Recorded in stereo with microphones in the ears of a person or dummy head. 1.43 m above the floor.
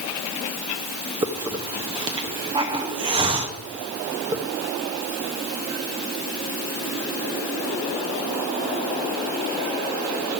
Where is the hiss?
25° right (ahead or behind), 0.9 m.